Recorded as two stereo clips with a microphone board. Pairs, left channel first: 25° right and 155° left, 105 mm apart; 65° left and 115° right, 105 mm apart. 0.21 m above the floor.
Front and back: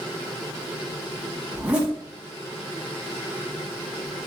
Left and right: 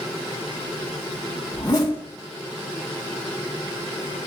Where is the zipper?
85° left, 1.6 m.